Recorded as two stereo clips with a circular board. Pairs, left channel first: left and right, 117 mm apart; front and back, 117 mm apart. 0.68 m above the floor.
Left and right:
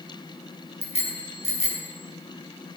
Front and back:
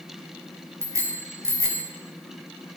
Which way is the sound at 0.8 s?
115° left.